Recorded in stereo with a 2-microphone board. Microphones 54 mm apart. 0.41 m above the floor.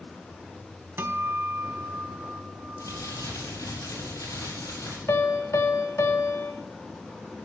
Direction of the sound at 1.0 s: 50° right (ahead or behind).